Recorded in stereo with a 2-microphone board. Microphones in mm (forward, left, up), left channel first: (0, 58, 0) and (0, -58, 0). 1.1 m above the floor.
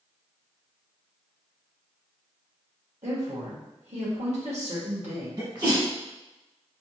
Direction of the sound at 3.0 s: 75° right (ahead or behind).